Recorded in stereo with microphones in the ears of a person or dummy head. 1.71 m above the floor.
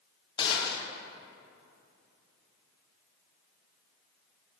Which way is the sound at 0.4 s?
20° left (ahead or behind).